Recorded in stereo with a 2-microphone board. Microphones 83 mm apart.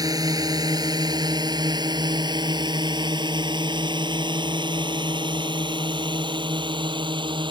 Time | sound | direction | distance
0.0 | a drone | 50° right (ahead or behind) | ?